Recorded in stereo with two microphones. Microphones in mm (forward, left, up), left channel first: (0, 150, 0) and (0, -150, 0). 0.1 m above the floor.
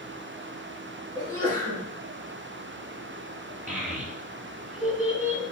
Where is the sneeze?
55° right (ahead or behind), 2 m.